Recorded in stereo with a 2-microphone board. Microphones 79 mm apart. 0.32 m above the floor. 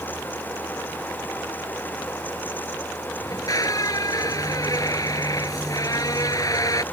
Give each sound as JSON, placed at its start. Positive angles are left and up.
{"t": 3.2, "sound": "a squeak", "side_deg": 50}